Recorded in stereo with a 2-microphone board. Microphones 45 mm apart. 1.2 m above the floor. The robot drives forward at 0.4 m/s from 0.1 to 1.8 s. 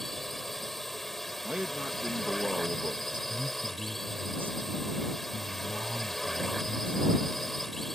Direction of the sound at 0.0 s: 5° left (ahead or behind).